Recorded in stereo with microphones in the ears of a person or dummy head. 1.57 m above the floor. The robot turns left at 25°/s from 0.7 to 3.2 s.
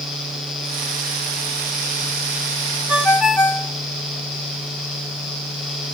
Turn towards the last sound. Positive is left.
turn(degrees=5)  # may be behind; listen again after turning